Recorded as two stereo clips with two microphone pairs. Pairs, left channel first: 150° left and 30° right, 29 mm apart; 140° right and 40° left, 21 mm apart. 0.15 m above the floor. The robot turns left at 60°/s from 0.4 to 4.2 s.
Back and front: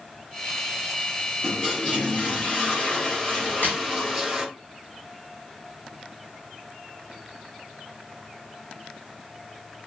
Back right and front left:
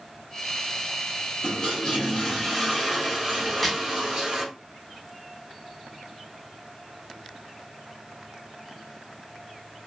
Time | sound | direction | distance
1.4 | a toilet flushing | 140° right | 1.8 m
3.5 | a crack | 145° left | 1.3 m